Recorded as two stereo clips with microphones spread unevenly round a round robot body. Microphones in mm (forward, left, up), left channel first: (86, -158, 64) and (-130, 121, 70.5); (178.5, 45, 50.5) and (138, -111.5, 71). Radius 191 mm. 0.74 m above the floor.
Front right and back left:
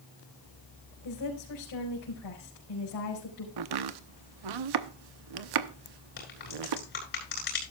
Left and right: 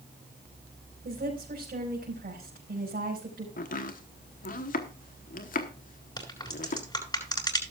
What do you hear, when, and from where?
1.1 s a woman speaking: 85° right, 5 m
3.6 s chopping: 115° left, 0.9 m
6.2 s a crack: 10° left, 8.5 m